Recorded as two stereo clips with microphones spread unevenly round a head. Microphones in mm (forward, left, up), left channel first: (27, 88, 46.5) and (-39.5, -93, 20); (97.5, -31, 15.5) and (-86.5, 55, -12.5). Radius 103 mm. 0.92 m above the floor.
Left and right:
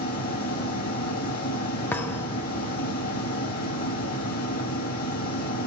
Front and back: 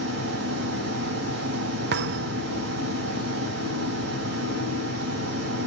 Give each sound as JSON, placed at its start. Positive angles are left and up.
{"t": 0.0, "sound": "a machine running", "azimuth_deg": 120, "distance_m": 5.5}
{"t": 1.9, "sound": "a thud", "azimuth_deg": 140, "distance_m": 0.8}